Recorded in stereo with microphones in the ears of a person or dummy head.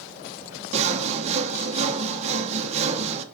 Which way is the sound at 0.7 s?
30° right (ahead or behind).